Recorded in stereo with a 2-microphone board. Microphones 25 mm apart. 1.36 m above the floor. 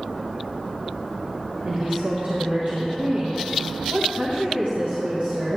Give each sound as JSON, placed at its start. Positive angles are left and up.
{"t": 1.6, "sound": "a woman speaking", "side_deg": -70, "distance_m": 1.4}